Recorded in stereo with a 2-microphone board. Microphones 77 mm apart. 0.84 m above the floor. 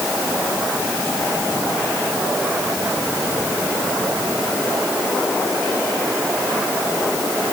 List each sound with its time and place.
Only background noise.